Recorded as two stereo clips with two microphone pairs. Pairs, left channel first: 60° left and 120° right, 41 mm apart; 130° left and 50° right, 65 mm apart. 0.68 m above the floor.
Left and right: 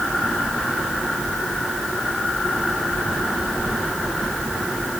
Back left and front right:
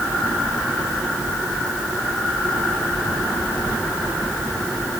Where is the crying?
I don't hear crying.